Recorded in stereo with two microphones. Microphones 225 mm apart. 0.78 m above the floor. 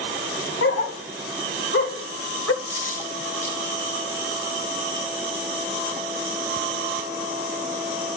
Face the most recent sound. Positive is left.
turn(degrees=-75)  # may be behind; listen again after turning